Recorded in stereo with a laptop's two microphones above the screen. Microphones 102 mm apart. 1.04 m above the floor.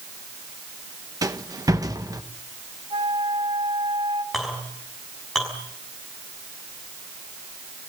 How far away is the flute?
About 3.5 m.